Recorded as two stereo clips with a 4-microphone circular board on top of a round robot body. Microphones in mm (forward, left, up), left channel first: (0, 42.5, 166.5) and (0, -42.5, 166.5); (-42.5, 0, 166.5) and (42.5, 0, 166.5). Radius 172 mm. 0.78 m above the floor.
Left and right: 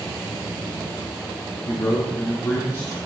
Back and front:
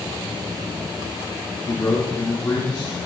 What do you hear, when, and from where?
1.6 s a man speaking: 140° left, 2.5 m